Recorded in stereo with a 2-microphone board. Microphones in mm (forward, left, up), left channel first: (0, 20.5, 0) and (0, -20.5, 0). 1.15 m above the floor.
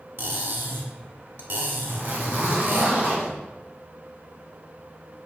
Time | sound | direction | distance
0.2 | cutlery clinking | 65° right (ahead or behind) | 1.5 m
1.9 | a zipper | 60° right (ahead or behind) | 1.7 m